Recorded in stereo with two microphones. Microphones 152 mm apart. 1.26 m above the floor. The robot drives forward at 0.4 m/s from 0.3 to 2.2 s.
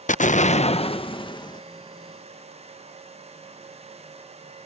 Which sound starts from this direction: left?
An explosion, at 0.1 s.